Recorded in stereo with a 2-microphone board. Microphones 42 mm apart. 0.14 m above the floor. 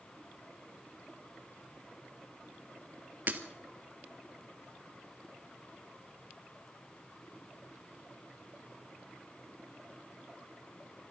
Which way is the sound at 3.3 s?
45° right (ahead or behind).